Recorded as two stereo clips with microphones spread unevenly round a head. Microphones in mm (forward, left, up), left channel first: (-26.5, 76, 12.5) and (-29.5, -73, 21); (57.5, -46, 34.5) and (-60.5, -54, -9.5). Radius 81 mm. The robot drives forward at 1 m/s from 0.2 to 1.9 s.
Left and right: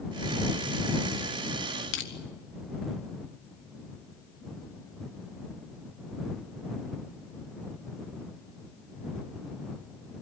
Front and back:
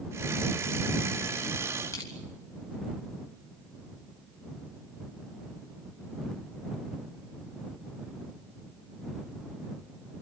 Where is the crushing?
75° left, 3 m.